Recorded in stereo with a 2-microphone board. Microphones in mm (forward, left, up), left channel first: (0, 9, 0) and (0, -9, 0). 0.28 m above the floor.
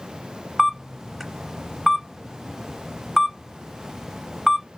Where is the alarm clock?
No alarm clock in this recording.